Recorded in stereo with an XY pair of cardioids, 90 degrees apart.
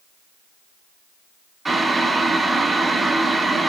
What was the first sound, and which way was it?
Boiling, 25° right.